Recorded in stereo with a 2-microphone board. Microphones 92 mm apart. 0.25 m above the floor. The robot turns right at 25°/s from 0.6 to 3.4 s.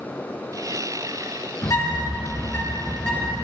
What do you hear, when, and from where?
1.6 s a bird: 135° left, 2 m; by 3.4 s straight behind, 2 m